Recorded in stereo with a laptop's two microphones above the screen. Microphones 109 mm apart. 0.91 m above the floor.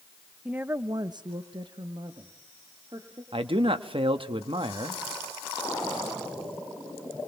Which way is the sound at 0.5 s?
10° right (ahead or behind).